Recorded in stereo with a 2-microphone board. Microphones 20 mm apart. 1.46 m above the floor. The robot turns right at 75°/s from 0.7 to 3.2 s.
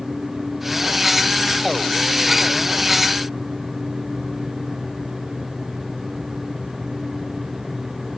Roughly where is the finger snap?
I don't hear a finger snap.